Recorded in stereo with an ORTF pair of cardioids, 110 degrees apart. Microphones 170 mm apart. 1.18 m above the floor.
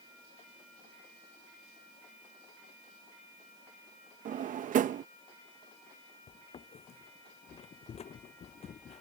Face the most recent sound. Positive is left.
turn(degrees=40)